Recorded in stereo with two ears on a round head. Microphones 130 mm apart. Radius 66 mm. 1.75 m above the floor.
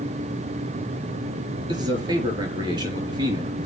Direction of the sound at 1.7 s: 35° right (ahead or behind).